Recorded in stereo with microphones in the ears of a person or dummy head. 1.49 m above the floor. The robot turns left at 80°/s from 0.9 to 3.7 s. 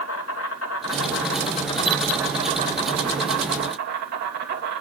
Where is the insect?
100° left, 2.5 m; by 4.8 s 125° right, 2.5 m.